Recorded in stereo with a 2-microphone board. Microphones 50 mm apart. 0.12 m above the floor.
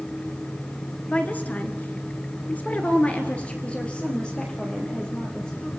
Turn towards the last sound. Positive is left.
turn(degrees=15)  # may be behind; listen again after turning